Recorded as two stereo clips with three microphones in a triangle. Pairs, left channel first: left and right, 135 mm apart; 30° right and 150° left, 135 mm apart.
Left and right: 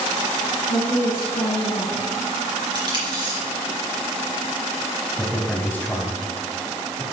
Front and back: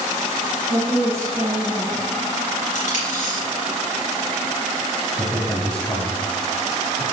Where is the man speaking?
35° left, 1.1 m.